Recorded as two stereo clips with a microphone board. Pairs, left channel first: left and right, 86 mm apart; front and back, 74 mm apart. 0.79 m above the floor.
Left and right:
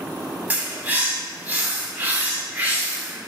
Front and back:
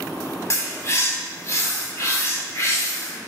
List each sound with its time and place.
0.5 s a bird: 30° right, 0.8 m